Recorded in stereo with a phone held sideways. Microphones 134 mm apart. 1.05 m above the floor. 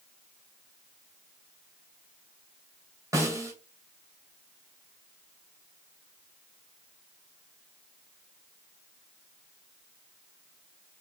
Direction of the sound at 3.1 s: 25° right (ahead or behind).